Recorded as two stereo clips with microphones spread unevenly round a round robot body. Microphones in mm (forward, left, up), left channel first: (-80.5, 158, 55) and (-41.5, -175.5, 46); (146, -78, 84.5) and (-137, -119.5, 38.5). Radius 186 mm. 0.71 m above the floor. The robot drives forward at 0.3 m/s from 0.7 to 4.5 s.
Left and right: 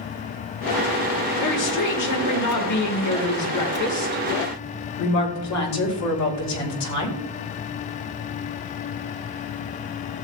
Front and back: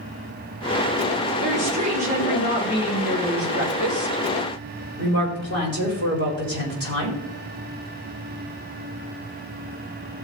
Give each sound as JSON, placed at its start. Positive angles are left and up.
{"t": 1.4, "sound": "a woman speaking", "azimuth_deg": 125, "distance_m": 3.5}